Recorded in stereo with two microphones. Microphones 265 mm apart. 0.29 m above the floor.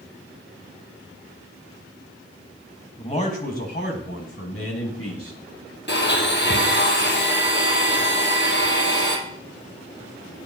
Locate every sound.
3.0 s a man speaking: 25° left (ahead or behind), 1.7 m; by 5.4 s 65° left (ahead or behind), 2.5 m
5.9 s a blender: 45° left (ahead or behind), 1.9 m